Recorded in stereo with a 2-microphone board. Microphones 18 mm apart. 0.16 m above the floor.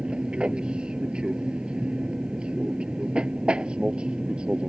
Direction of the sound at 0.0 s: 60° right (ahead or behind).